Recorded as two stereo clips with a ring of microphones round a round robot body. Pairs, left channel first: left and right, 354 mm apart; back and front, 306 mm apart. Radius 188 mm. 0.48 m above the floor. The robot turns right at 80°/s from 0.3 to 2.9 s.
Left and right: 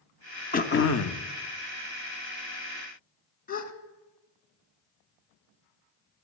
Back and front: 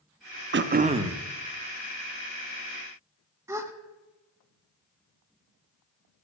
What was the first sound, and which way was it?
Throat clearing, 30° left.